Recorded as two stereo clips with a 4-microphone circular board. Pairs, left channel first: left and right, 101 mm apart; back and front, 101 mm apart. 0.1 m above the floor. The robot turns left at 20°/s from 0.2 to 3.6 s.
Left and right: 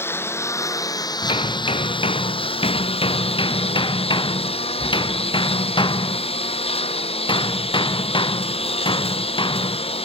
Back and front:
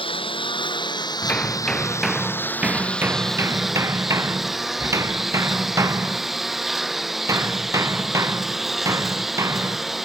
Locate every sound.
0.0 s a lawn mower: 155° left; by 10.1 s 90° left
1.2 s hammering: 105° left; by 10.1 s 60° left